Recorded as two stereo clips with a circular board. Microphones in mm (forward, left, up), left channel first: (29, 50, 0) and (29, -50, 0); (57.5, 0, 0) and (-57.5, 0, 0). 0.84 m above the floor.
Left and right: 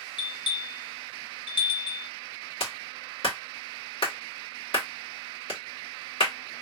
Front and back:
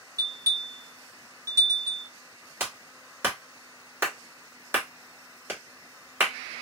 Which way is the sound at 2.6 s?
110° left.